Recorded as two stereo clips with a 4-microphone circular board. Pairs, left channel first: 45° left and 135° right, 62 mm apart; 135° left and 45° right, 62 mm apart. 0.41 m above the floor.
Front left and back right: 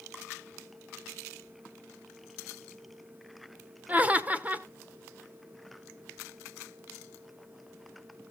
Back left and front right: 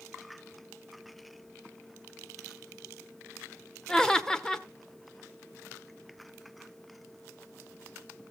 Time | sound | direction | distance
3.9 | laughter | 160° right | 0.9 m